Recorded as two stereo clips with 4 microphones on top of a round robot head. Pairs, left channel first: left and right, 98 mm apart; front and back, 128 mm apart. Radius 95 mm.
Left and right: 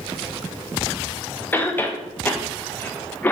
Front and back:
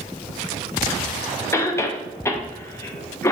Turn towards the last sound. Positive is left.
turn(degrees=40)